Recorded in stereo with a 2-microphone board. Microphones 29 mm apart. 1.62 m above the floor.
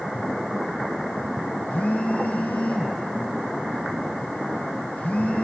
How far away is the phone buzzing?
About 0.7 m.